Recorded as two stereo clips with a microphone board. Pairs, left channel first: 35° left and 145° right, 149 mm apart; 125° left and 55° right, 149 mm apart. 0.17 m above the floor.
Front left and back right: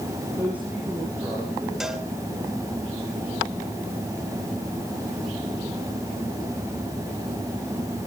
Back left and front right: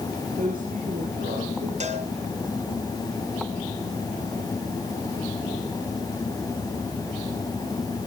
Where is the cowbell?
60° right, 2 m.